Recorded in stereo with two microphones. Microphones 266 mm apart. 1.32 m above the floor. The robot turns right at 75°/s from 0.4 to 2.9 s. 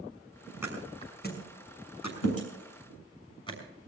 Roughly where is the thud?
Centre.